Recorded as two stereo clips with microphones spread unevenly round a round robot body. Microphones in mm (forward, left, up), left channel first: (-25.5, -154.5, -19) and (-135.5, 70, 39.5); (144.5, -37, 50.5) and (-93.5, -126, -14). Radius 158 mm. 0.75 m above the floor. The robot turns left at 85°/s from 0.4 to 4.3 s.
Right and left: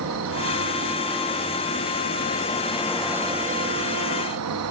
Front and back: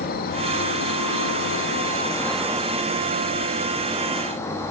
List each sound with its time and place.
0.0 s an insect: 85° left, 1.1 m; by 4.7 s 110° left, 1.1 m